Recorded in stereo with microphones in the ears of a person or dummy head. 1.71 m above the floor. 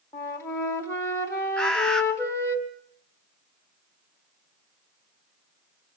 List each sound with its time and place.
0.1 s a flute: 15° left (ahead or behind), 2.5 m
1.6 s a bird: 5° left (ahead or behind), 0.9 m